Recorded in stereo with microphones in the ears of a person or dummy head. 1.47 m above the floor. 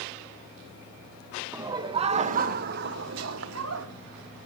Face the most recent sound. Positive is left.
turn(degrees=-80)